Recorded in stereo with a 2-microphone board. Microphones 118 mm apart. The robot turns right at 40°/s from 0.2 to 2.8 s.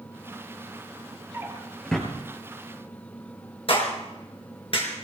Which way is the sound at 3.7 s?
50° left (ahead or behind).